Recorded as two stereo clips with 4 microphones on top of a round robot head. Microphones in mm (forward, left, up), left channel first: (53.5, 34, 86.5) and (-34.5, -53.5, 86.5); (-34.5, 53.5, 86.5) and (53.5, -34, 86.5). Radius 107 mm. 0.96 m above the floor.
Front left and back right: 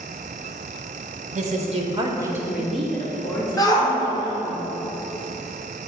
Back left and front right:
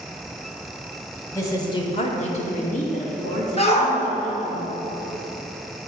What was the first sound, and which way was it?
A woman speaking, 155° right.